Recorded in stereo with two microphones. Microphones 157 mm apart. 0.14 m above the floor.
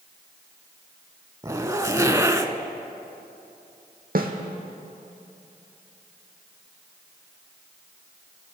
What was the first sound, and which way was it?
A zipper, 20° right (ahead or behind).